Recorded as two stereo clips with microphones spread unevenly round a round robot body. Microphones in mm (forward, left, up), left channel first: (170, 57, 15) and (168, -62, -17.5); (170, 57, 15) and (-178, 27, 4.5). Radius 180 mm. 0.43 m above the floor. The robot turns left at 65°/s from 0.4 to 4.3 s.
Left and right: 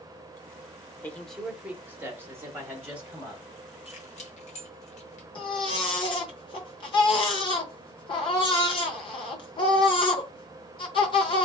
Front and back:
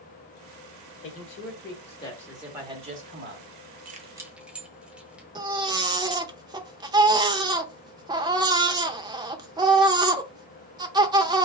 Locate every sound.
1.0 s a man speaking: straight ahead, 1.1 m; by 3.8 s straight behind, 1.1 m
3.9 s keys jangling: 130° left, 0.7 m; by 5.2 s 100° left, 0.7 m
5.3 s a baby crying: 120° left, 0.5 m